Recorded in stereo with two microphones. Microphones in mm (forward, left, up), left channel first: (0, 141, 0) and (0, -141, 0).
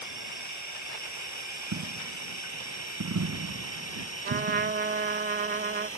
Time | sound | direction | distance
0.0 | a drone | 70° left (ahead or behind) | ?
1.7 | a dropped coin | 80° right | ?
4.2 | a trumpet | 35° right (ahead or behind) | ?